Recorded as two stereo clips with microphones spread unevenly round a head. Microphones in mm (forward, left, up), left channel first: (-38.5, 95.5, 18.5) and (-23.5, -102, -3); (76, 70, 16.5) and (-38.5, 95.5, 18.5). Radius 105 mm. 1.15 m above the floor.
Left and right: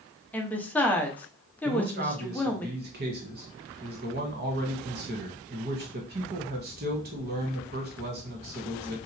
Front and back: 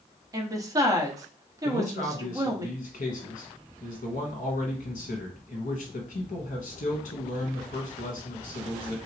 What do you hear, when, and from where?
0.3 s a woman speaking: straight behind, 0.7 m
1.6 s a man speaking: 40° right, 1.1 m